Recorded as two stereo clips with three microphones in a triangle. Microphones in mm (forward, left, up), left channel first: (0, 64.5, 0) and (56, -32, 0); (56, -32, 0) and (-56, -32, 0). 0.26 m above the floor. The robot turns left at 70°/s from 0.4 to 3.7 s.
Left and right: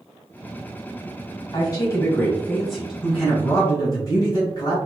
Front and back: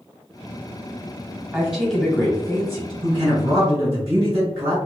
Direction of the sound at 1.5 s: 115° left.